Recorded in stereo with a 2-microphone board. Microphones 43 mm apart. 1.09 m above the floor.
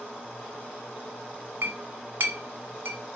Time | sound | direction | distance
1.6 | a clink | 65° right (ahead or behind) | 1.1 m